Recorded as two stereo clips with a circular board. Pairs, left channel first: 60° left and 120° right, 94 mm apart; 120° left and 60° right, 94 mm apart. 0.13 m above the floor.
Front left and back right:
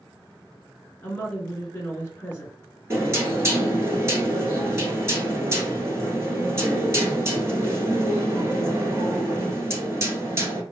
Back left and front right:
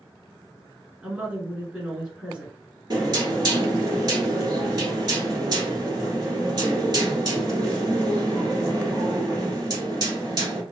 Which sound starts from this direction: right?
Knocking, at 2.9 s.